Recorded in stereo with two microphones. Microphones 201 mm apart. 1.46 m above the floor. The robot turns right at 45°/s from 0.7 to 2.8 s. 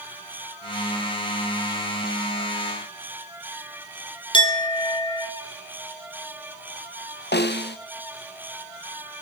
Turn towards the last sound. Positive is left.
turn(degrees=55)  # may be behind; listen again after turning